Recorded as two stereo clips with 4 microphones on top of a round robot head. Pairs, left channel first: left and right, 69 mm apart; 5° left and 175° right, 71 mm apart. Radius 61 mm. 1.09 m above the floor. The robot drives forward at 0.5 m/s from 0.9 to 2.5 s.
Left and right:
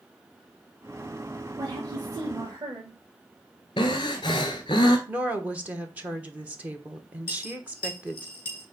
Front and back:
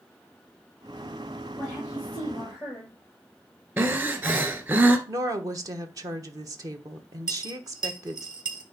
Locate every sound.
1.6 s a woman speaking: 65° right, 2.5 m; by 3.0 s 75° right, 2.5 m
3.8 s breathing: 130° left, 1.4 m
5.1 s a woman speaking: 155° right, 1.0 m
7.3 s a dropped coin: 155° left, 3.5 m